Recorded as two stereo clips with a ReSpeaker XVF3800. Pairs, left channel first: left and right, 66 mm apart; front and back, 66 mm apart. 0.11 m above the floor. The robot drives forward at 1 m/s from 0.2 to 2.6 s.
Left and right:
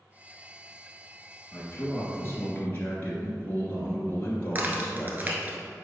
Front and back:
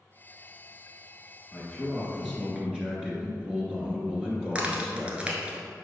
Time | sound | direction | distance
1.5 | a man speaking | 55° left | 1.7 m
4.5 | a crack | 120° right | 1.2 m